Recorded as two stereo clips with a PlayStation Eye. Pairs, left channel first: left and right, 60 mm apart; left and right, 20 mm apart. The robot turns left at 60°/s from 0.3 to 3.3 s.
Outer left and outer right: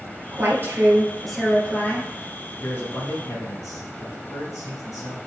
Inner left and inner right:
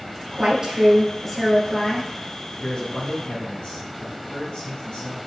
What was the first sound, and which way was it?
A woman speaking, 120° right.